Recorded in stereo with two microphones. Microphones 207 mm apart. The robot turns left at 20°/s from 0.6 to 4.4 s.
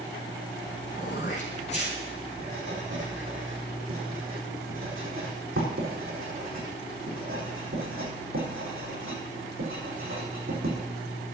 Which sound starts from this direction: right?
Writing, at 2.4 s.